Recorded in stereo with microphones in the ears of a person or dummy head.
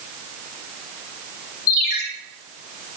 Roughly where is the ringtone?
Left.